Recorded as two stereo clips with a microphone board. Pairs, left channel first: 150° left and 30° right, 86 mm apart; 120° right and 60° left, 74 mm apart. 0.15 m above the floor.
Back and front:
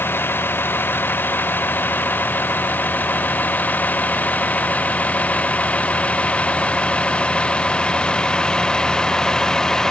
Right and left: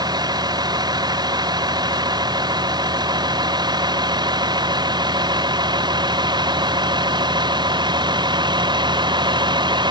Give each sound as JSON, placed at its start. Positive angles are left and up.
{"t": 0.0, "sound": "a vehicle", "azimuth_deg": 85}